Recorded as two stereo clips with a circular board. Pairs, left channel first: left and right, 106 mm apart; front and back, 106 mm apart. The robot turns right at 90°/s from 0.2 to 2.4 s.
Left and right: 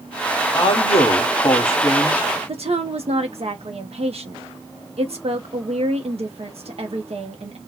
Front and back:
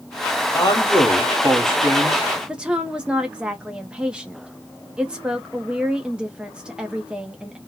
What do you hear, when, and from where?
0.5 s a man speaking: 45° left, 1.3 m; by 2.2 s 160° right, 1.3 m
2.5 s a woman speaking: 100° right, 0.6 m